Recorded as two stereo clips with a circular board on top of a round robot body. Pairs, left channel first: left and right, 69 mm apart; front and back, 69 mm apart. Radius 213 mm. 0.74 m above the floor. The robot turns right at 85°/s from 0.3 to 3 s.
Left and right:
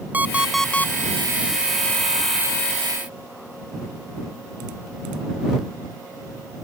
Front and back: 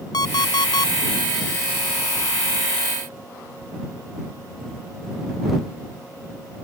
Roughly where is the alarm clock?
Ahead.